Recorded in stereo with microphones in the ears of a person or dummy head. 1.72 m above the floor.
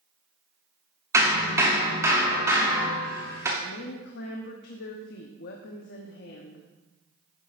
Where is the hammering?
15° right (ahead or behind), 2.5 m.